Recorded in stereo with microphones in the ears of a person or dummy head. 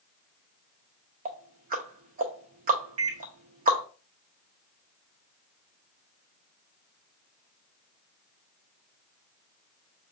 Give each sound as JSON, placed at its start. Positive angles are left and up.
{"t": 1.2, "sound": "ticking", "side_deg": -50, "distance_m": 0.6}
{"t": 3.0, "sound": "a microwave", "side_deg": -80, "distance_m": 0.8}